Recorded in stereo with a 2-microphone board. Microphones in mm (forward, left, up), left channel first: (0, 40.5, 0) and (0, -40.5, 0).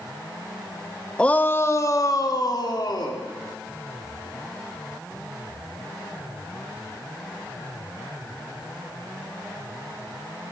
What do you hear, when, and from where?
1.2 s a shout: 10° left (ahead or behind), 0.9 m; by 3.2 s 60° left (ahead or behind), 2.5 m